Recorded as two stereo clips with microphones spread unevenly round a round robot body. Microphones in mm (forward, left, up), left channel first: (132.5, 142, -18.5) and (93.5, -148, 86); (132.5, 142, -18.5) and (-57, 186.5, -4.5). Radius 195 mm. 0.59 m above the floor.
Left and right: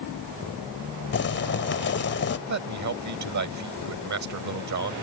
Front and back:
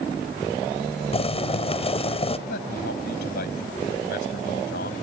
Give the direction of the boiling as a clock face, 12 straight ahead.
11 o'clock.